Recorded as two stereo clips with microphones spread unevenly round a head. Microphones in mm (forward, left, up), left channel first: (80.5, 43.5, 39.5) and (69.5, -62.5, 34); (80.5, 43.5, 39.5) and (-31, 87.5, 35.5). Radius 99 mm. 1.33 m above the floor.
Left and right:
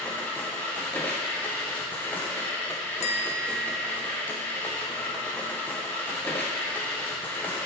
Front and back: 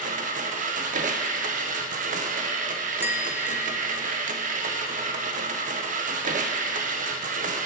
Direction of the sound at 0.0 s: 165° left.